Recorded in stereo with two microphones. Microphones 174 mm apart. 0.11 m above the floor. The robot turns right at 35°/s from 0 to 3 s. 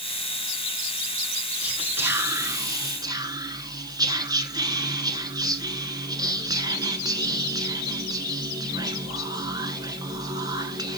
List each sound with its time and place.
1.6 s whispering: 5° right (ahead or behind), 1.1 m; by 11.0 s 20° right (ahead or behind), 1.1 m